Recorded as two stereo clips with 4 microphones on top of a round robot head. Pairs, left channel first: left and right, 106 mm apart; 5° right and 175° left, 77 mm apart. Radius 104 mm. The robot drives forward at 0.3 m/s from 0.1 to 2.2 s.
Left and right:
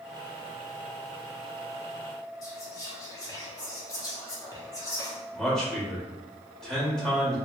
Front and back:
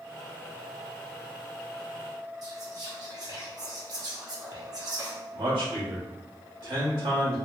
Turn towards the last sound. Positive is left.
turn(degrees=175)